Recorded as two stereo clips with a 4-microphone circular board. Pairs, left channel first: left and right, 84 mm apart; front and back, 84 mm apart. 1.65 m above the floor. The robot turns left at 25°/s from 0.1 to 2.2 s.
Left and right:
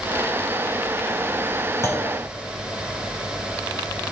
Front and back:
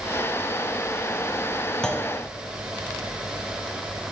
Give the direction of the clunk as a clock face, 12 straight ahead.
9 o'clock.